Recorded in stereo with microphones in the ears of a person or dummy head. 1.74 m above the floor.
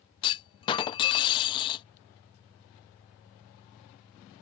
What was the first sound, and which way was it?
A clunk, 25° left (ahead or behind).